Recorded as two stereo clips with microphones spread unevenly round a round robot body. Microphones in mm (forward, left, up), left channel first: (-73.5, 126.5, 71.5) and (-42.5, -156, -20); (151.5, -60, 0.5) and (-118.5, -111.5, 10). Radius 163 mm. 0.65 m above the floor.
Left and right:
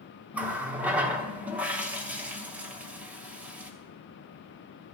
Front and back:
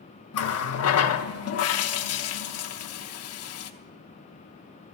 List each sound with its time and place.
0.3 s a running tap: 10° right, 0.9 m